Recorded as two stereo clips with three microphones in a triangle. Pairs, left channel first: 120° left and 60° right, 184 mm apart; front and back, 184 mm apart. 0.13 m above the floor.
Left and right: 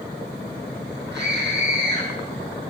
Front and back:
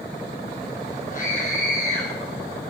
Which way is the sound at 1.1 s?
45° right.